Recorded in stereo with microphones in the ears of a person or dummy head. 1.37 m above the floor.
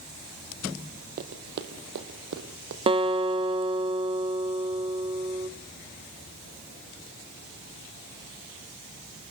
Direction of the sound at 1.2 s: 50° right (ahead or behind).